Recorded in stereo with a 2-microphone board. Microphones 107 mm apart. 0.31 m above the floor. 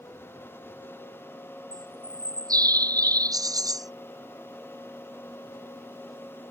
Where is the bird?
35° right (ahead or behind).